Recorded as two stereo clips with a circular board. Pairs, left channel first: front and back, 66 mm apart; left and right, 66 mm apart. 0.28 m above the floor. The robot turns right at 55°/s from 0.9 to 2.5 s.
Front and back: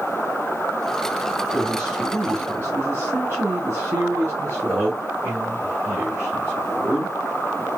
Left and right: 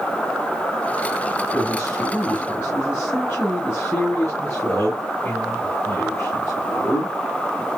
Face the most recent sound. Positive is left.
turn(degrees=140)